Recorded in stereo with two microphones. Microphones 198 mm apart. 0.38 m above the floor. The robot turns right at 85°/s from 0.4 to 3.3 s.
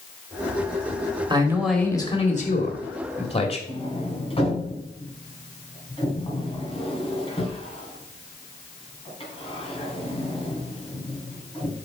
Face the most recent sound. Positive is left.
turn(degrees=30)  # may be behind; listen again after turning